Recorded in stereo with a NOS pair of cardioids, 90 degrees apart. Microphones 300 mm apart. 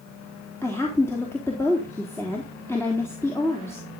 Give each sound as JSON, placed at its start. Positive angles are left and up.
{"t": 0.6, "sound": "a woman speaking", "azimuth_deg": 10, "distance_m": 3.5}